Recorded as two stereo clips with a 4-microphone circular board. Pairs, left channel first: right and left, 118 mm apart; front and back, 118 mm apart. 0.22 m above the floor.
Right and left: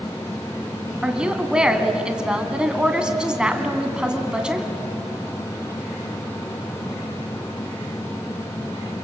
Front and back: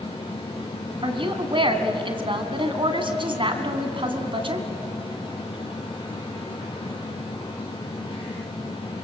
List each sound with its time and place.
1.0 s a woman speaking: 170° left, 1.9 m